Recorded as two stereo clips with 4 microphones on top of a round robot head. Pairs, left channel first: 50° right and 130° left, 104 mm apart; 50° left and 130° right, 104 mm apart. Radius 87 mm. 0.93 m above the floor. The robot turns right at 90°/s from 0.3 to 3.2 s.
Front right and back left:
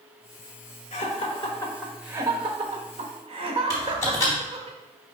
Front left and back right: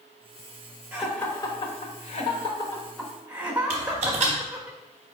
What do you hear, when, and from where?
0.9 s laughter: 50° right, 1.1 m; by 4.7 s 155° left, 1.1 m
3.7 s typing on a keyboard: 110° right, 0.9 m